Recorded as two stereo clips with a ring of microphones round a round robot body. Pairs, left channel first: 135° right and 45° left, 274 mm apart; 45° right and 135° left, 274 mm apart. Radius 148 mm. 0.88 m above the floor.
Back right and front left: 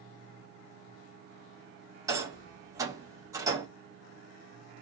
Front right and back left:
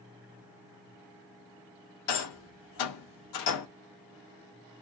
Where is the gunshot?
No gunshot in this recording.